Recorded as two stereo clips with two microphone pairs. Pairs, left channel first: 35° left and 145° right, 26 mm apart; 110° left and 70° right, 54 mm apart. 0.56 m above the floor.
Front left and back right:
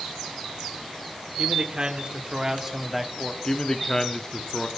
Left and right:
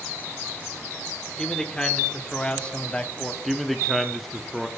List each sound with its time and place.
1.4 s a man speaking: 175° right, 1.6 m; by 3.3 s 100° left, 0.8 m
3.4 s a man speaking: 20° left, 0.7 m